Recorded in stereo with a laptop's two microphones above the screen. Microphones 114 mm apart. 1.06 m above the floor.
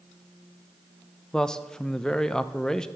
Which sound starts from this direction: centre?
A man speaking, at 1.3 s.